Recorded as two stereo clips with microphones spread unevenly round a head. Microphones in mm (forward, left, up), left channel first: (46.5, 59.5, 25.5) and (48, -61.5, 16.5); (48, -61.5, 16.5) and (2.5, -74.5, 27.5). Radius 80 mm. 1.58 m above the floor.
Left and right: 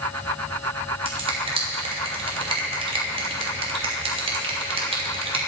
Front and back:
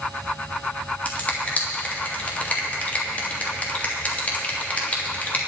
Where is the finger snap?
45° right, 3 m.